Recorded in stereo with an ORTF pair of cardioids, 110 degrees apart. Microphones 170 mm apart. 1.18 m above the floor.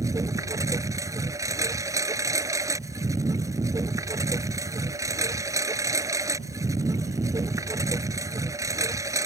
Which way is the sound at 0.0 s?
20° right.